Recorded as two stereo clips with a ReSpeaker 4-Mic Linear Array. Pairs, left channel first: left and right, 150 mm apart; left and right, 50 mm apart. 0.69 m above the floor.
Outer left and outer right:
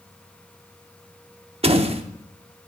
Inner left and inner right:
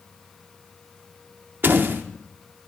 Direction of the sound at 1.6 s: 40° right (ahead or behind).